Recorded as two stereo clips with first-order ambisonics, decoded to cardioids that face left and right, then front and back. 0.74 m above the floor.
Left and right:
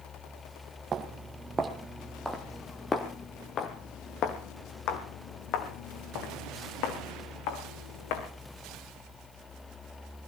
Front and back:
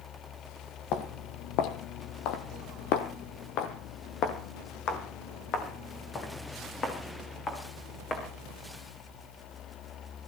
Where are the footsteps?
30° right, 1.8 m; by 8.3 s 70° left, 4 m.